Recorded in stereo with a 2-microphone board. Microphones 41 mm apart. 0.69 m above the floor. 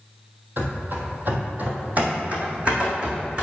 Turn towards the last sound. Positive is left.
turn(degrees=-20)  # may be behind; listen again after turning